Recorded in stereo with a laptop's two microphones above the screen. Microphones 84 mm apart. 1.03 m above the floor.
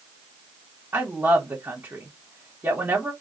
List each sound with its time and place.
0.9 s a woman speaking: 25° right (ahead or behind), 1.2 m